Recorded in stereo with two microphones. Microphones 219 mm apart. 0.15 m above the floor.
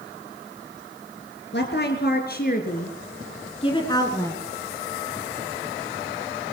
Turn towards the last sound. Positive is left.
turn(degrees=10)  # may be behind; listen again after turning